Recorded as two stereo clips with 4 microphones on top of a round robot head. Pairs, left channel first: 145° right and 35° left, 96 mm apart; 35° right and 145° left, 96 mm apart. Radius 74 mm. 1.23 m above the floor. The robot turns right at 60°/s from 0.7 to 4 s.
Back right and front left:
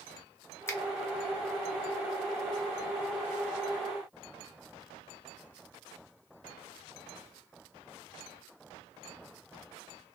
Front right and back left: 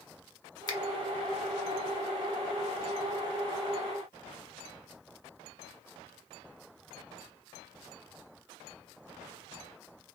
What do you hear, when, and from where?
0.7 s a finger snap: 80° right, 0.7 m; by 0.8 s 75° right, 0.7 m